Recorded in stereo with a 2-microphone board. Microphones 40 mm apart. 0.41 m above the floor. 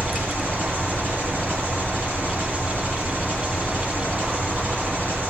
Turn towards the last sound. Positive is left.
turn(degrees=-65)  # may be behind; listen again after turning